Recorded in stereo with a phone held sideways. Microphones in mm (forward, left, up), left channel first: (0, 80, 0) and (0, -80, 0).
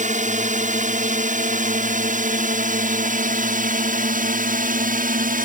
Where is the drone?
50° right (ahead or behind); by 5.5 s 60° right (ahead or behind).